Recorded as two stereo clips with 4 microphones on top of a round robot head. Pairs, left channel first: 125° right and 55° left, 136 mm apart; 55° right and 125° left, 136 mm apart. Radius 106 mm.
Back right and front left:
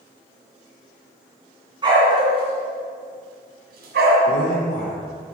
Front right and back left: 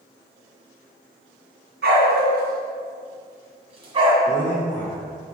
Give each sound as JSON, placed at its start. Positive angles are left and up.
{"t": 1.8, "sound": "a dog barking", "azimuth_deg": 115, "distance_m": 2.5}
{"t": 4.2, "sound": "a man speaking", "azimuth_deg": -130, "distance_m": 2.5}